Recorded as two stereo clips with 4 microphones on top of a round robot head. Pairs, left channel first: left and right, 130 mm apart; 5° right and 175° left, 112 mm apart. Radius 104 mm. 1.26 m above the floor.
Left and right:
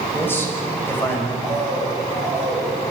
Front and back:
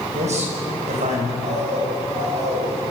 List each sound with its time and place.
0.1 s a man speaking: 165° left, 6 m
1.4 s a bird: 160° left, 6 m